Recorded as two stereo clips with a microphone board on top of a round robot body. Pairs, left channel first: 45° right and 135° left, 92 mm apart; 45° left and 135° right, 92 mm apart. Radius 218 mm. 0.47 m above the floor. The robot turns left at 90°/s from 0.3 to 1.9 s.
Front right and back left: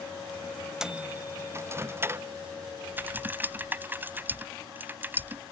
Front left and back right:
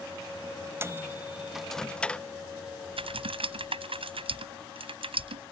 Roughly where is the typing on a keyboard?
Behind right.